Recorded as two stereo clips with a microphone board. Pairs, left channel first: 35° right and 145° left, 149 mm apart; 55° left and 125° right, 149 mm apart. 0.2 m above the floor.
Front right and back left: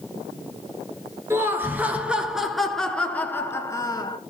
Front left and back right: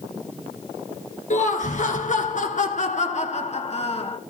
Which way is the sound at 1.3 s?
75° left.